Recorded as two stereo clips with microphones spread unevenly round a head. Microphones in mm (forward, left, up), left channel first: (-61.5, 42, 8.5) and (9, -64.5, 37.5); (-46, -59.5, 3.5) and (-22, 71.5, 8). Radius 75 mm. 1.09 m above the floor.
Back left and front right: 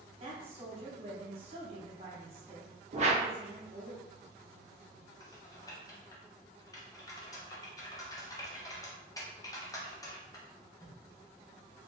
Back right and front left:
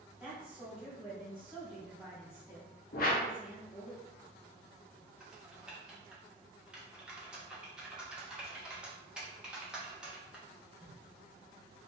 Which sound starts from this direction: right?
A whoosh, at 2.9 s.